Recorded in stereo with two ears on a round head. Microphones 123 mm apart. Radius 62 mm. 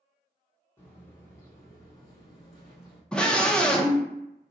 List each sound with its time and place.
0.8 s footsteps: 20° left (ahead or behind), 1.5 m; by 3.0 s 40° left (ahead or behind), 1.3 m
3.1 s a scream: 5° left (ahead or behind), 0.6 m